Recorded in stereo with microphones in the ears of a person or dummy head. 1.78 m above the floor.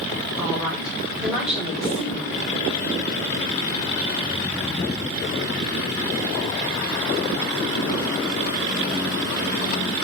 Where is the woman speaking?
10° right (ahead or behind), 5 m.